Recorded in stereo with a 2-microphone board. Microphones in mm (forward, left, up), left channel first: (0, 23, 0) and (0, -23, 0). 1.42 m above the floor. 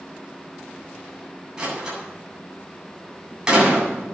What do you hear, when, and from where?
1.6 s a door slam: 15° right (ahead or behind), 8.5 m